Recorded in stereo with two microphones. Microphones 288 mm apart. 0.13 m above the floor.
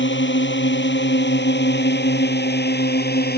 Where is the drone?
35° left (ahead or behind); by 3.4 s 30° left (ahead or behind).